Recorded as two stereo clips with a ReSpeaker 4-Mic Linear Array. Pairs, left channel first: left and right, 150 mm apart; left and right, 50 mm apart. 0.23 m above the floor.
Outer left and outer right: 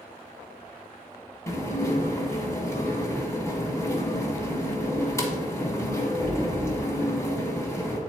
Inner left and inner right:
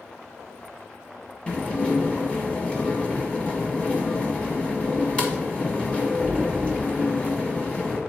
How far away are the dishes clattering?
About 1.1 m.